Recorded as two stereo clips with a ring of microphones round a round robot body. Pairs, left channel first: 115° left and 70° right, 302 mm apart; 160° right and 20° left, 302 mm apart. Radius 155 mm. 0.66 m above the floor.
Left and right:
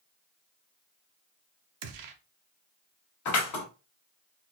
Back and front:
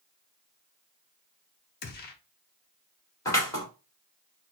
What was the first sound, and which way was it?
A gunshot, 95° right.